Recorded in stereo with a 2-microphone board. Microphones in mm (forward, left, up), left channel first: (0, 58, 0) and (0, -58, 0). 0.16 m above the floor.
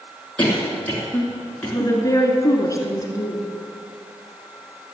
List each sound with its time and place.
0.4 s a cough: 10° left (ahead or behind), 2 m
1.7 s a woman speaking: 30° left (ahead or behind), 1.8 m